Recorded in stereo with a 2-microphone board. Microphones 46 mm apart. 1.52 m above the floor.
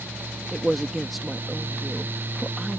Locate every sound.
0.5 s a man speaking: centre (ahead or behind)